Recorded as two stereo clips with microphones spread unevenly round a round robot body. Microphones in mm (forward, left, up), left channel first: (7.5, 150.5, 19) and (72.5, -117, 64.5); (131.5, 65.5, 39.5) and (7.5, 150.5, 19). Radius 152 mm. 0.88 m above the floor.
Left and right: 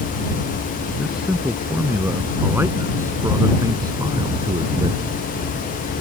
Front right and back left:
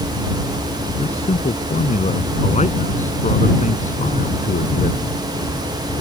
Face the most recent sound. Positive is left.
turn(degrees=-5)